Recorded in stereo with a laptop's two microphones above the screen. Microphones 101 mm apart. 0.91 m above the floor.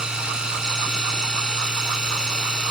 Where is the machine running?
5° right (ahead or behind).